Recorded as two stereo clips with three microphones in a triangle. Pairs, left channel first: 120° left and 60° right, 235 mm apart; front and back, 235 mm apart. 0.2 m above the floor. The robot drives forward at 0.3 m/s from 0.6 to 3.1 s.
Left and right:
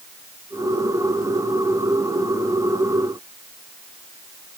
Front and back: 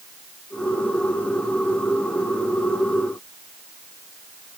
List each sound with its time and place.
Only background noise.